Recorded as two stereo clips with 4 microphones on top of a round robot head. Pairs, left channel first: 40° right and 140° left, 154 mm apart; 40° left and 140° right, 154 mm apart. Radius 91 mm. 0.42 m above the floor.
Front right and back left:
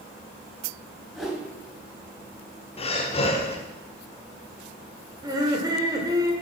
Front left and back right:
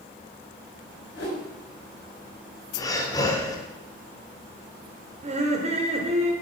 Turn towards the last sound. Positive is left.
turn(degrees=-165)